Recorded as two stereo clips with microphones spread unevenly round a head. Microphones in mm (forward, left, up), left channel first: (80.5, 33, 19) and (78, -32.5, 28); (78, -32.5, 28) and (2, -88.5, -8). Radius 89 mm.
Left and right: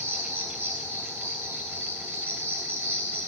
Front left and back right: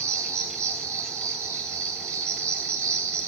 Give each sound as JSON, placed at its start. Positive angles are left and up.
{"t": 0.0, "sound": "an insect", "azimuth_deg": -155, "distance_m": 1.5}